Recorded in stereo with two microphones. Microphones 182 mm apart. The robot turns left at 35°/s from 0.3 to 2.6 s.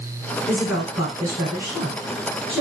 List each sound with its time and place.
0.5 s a woman speaking: 5° right (ahead or behind), 1.3 m; by 2.6 s 25° right (ahead or behind), 1.3 m